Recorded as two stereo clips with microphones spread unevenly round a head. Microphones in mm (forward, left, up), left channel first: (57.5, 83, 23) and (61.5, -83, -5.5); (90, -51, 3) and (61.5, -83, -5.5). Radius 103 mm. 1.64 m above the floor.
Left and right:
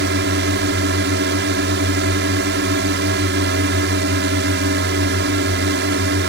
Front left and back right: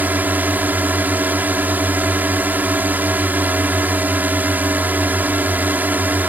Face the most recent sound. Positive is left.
turn(degrees=-85)